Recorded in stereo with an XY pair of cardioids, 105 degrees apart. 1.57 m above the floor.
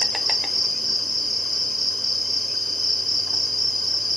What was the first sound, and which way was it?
An insect, straight ahead.